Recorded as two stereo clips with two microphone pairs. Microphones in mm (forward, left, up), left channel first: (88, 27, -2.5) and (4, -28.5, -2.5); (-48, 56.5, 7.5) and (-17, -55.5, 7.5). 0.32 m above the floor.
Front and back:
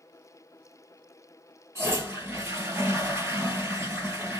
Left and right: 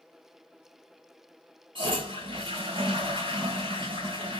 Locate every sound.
1.8 s a toilet flushing: 90° right, 2.5 m